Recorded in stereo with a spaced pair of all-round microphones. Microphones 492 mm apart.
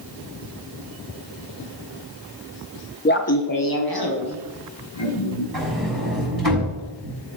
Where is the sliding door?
45° right (ahead or behind), 6 m.